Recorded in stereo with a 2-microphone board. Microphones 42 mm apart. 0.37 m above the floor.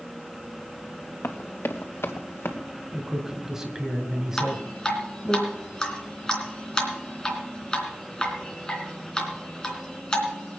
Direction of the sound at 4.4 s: 15° left (ahead or behind).